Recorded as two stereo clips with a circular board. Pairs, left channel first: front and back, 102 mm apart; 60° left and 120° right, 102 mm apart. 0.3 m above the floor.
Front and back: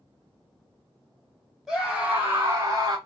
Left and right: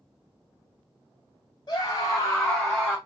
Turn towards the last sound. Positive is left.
turn(degrees=160)